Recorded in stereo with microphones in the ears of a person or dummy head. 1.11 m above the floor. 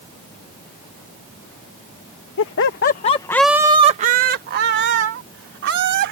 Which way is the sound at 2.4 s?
65° left (ahead or behind).